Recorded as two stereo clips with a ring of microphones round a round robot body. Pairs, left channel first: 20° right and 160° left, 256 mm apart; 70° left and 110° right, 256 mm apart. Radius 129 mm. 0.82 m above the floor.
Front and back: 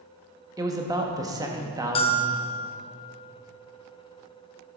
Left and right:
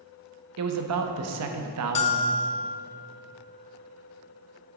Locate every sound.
0.6 s a man speaking: 125° right, 0.8 m
1.9 s a bell: 30° left, 0.5 m